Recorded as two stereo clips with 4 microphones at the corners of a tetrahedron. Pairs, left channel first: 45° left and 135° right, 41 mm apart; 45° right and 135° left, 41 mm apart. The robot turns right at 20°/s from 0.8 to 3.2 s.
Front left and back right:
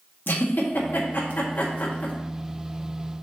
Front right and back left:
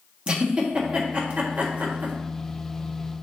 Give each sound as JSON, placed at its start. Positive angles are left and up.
{"t": 0.3, "sound": "a giggle", "azimuth_deg": 75, "distance_m": 1.5}